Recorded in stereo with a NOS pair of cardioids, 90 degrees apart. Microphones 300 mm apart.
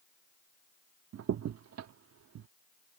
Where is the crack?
55° right.